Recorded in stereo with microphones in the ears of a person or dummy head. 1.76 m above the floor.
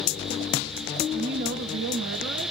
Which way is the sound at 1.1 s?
45° right (ahead or behind).